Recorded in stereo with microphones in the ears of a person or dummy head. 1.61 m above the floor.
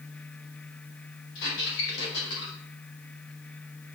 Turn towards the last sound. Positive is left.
turn(degrees=75)  # may be behind; listen again after turning